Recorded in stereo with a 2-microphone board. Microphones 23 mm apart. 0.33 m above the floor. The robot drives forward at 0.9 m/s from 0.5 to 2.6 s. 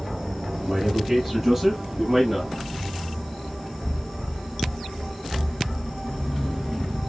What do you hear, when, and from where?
0.6 s a man speaking: 20° right (ahead or behind), 9.5 m; by 2.5 s 15° right (ahead or behind), 11 m